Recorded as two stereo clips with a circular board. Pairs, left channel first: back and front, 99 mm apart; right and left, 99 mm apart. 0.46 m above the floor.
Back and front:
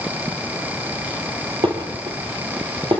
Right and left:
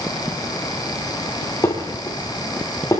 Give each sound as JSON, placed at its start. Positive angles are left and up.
{"t": 1.6, "sound": "dishes clattering", "azimuth_deg": -25, "distance_m": 8.0}